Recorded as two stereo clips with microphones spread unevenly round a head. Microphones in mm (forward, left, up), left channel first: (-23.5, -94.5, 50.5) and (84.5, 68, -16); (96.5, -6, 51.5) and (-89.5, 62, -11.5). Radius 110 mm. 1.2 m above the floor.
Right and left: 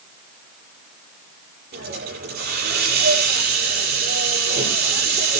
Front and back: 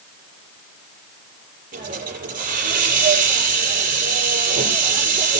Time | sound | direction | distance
1.7 | a hiss | 110° left | 8 m